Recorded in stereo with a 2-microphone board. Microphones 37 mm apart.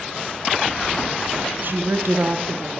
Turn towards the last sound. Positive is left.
turn(degrees=-60)  # may be behind; listen again after turning